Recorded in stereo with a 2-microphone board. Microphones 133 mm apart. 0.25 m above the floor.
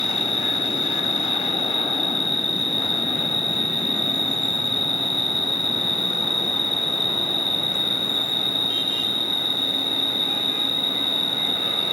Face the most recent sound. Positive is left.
turn(degrees=-40)  # may be behind; listen again after turning